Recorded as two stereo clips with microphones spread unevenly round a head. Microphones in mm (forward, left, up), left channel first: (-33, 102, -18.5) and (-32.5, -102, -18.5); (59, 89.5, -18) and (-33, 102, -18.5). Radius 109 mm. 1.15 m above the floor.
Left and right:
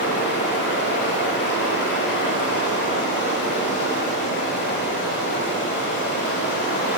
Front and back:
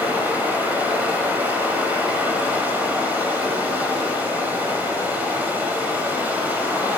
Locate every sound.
0.0 s running water: 105° left, 1.4 m